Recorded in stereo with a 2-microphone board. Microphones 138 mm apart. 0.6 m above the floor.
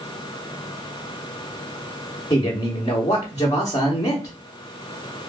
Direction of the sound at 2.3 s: 25° left (ahead or behind).